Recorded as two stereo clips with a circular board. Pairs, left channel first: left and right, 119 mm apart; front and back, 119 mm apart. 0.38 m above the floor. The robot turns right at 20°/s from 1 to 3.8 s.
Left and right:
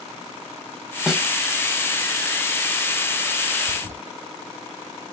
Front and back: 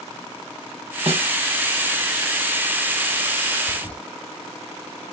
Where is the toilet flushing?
80° right, 2 m.